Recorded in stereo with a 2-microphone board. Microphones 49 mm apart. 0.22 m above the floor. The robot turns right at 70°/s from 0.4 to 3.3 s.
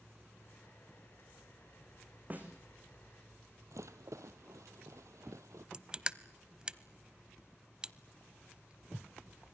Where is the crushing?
15° right (ahead or behind), 0.6 m.